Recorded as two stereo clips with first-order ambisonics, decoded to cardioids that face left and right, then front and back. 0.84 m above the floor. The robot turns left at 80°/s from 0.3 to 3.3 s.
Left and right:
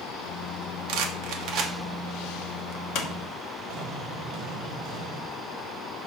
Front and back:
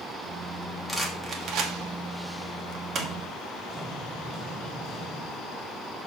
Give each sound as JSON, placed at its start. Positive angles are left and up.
{"t": 0.9, "sound": "a rattle", "azimuth_deg": -80, "distance_m": 1.1}
{"t": 3.7, "sound": "an explosion", "azimuth_deg": -100, "distance_m": 1.4}